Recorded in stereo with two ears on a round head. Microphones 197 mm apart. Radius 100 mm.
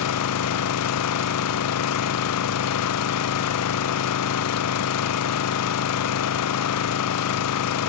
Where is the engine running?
85° left, 0.8 m.